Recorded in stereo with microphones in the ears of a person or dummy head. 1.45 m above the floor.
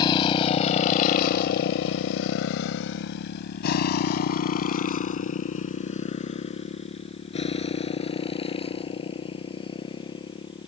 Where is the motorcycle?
30° left (ahead or behind); by 10.7 s 25° left (ahead or behind).